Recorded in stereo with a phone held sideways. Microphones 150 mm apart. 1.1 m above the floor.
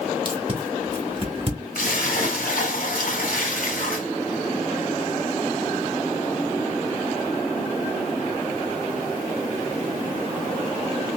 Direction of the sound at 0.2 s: 40° right (ahead or behind).